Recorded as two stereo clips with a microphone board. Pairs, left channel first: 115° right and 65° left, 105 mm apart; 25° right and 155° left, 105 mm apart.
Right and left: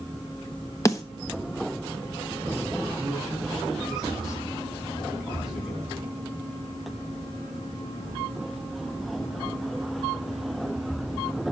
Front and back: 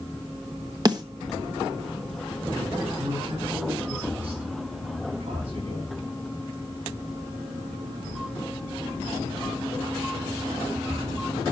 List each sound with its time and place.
0.8 s a snare drum: 165° right, 1.1 m
3.0 s a man speaking: 155° left, 9 m